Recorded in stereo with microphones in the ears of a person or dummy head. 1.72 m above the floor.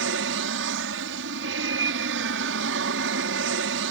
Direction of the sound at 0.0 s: 65° right (ahead or behind).